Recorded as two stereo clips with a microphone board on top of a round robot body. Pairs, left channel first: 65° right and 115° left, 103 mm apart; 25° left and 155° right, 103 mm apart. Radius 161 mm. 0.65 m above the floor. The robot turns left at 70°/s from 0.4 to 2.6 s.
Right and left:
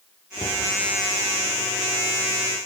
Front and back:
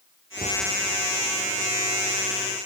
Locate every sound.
0.4 s a cupboard door: 120° right, 8.5 m; by 0.6 s 135° right, 8.5 m